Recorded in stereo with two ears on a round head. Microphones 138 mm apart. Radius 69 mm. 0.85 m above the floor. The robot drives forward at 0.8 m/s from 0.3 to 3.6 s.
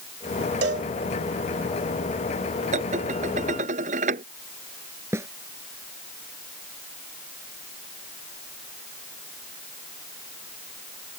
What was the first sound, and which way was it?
A cowbell, 85° right.